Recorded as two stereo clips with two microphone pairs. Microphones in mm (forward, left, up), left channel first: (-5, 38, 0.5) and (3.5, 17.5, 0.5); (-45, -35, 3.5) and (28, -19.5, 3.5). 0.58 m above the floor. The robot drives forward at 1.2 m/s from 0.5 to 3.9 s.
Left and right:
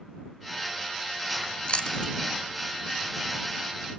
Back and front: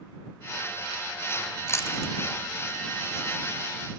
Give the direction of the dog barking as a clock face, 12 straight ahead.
No dog barking in this recording.